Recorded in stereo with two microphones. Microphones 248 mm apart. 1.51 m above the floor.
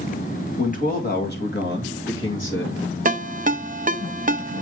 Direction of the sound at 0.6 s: 30° left (ahead or behind).